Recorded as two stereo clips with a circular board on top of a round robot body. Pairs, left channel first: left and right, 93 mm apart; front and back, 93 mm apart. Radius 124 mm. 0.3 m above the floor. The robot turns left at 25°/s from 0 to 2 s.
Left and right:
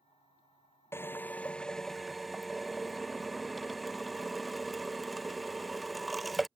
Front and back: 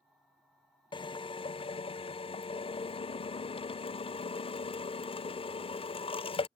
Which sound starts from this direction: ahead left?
A drill, at 0.9 s.